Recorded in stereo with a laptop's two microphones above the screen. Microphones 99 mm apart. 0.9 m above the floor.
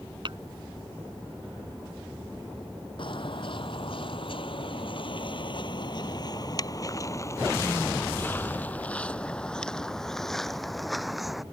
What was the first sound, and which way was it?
Tapping, 55° right (ahead or behind).